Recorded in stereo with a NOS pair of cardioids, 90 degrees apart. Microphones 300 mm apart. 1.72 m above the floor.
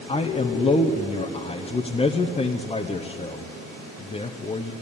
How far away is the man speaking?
About 0.8 m.